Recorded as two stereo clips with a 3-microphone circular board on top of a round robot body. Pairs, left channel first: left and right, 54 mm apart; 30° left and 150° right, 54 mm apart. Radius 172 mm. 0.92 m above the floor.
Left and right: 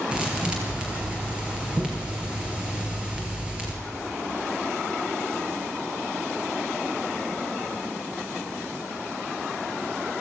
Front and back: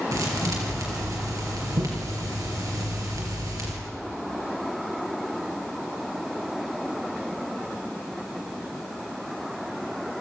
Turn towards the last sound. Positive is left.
turn(degrees=-165)